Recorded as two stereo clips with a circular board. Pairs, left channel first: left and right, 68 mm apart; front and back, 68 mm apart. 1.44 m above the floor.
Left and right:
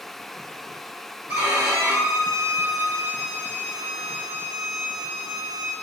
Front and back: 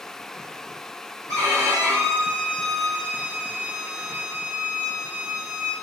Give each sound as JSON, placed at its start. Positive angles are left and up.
{"t": 1.3, "sound": "a violin", "azimuth_deg": -150, "distance_m": 1.5}